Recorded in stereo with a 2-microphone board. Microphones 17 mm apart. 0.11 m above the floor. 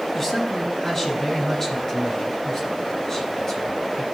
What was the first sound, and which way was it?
A man speaking, 30° left (ahead or behind).